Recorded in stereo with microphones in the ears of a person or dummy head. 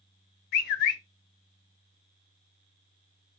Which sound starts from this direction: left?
A bird, at 0.5 s.